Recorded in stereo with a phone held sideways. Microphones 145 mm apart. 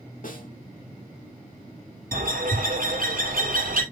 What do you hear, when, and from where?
0.2 s a snare drum: 70° left (ahead or behind), 2 m
2.1 s a bird: 75° right (ahead or behind), 2.5 m